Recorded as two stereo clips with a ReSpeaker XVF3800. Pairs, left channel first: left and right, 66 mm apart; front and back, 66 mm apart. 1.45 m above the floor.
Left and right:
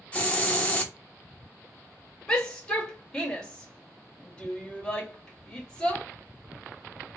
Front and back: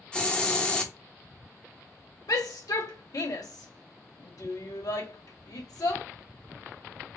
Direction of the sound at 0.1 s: 55° left.